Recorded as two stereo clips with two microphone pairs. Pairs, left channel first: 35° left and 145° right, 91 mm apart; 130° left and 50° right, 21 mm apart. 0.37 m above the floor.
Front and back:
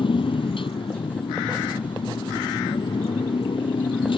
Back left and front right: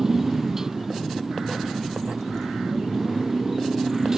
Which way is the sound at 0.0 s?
15° left.